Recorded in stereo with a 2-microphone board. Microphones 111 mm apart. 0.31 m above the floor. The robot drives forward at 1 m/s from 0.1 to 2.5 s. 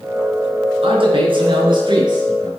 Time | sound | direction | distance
0.8 | a man speaking | 55° right (ahead or behind) | 4 m